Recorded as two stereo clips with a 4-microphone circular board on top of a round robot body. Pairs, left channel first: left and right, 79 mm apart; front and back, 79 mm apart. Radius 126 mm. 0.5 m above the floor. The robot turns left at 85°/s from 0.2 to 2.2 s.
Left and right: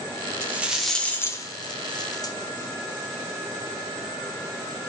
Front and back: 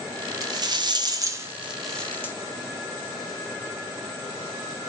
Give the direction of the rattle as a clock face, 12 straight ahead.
5 o'clock.